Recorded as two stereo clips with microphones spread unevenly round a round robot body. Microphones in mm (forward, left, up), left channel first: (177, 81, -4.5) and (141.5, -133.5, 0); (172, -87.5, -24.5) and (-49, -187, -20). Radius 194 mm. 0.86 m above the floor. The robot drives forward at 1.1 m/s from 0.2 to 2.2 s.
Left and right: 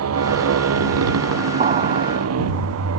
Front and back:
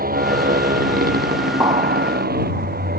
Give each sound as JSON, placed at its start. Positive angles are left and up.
{"t": 0.0, "sound": "a motorcycle", "azimuth_deg": -100}
{"t": 1.6, "sound": "an explosion", "azimuth_deg": -90}